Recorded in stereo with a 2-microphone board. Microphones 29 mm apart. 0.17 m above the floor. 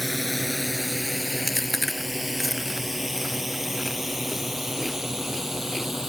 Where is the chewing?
Centre (ahead or behind).